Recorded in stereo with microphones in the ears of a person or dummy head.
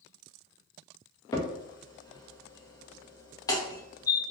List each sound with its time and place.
1.3 s a crack: 20° left (ahead or behind), 0.5 m